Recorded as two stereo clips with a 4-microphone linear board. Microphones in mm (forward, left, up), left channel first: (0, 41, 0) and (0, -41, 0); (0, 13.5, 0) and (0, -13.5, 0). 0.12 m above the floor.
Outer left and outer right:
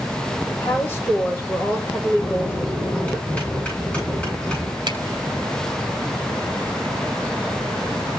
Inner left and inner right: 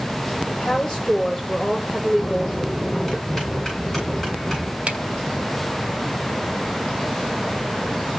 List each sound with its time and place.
0.5 s a woman speaking: 25° left (ahead or behind), 5.5 m
2.2 s a bell: 15° left (ahead or behind), 9 m
4.9 s a finger snap: 55° right (ahead or behind), 2.5 m